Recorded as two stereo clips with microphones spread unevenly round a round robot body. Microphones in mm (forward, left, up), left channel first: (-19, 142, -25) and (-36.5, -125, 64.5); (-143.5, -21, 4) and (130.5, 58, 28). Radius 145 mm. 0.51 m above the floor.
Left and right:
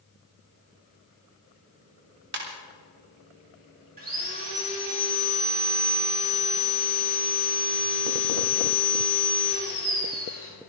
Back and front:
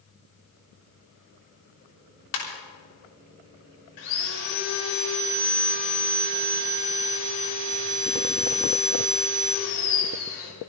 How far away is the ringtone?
About 5 m.